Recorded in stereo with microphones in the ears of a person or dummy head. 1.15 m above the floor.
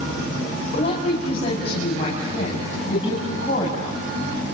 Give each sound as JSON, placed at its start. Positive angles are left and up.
{"t": 0.7, "sound": "a woman speaking", "side_deg": 40, "distance_m": 6.0}